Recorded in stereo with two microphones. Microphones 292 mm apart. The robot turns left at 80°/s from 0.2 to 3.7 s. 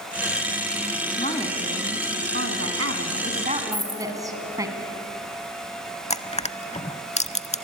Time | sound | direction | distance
1.2 | a woman speaking | 35° left | 2.5 m
3.7 | a dropped coin | 20° right (ahead or behind) | 3 m
6.1 | crushing | 25° left (ahead or behind) | 0.6 m